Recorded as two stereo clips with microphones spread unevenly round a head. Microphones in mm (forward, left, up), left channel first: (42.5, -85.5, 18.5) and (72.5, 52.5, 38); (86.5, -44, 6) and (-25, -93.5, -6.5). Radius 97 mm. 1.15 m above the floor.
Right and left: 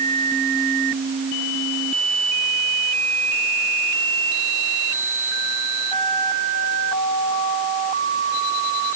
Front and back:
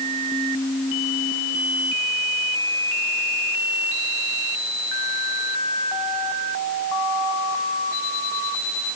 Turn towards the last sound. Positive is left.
No sound to turn to.